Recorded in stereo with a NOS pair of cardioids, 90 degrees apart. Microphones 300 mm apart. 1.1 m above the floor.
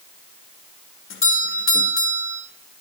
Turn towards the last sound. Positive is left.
turn(degrees=45)